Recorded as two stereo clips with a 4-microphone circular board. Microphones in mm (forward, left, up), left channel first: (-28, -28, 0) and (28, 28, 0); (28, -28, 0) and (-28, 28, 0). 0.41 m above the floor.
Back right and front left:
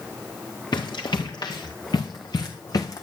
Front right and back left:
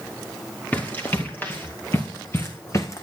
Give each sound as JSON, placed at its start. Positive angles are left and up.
{"t": 0.7, "sound": "running footsteps", "azimuth_deg": -110, "distance_m": 3.0}